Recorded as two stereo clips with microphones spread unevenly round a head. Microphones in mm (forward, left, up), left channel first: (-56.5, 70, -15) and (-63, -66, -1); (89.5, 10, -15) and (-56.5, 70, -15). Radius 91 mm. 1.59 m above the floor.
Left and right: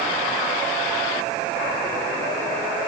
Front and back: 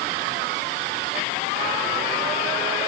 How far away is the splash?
I don't hear a splash.